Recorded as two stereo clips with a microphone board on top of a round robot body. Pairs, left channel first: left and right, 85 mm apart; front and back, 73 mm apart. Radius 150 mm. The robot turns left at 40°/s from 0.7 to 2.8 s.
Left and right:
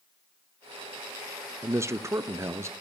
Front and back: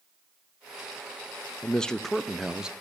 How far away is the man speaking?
About 0.6 m.